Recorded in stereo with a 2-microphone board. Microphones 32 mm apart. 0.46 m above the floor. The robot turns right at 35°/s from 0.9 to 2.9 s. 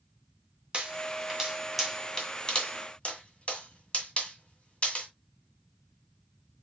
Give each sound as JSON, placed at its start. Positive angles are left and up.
{"t": 0.7, "sound": "a pop", "side_deg": -30, "distance_m": 1.8}